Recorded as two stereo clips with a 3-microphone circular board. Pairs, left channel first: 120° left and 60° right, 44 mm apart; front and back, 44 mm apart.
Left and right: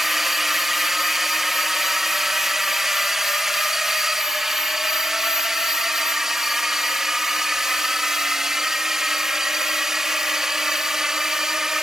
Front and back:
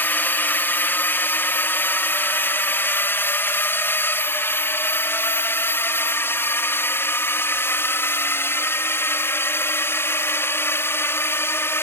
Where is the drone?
25° left; by 11.8 s 20° left.